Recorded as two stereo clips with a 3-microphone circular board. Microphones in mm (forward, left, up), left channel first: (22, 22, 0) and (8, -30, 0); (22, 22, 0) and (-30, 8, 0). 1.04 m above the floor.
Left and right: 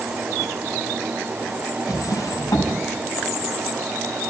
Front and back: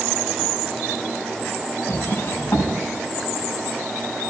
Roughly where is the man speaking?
No man speaking in this recording.